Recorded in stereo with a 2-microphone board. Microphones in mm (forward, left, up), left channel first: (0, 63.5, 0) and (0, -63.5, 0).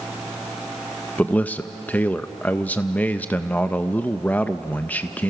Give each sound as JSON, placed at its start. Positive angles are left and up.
{"t": 1.2, "sound": "a man speaking", "side_deg": 15, "distance_m": 0.5}